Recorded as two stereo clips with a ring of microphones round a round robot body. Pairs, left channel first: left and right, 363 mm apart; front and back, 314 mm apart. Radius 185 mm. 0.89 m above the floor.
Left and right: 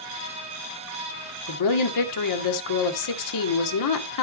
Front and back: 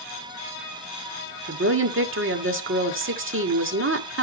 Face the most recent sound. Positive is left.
turn(degrees=130)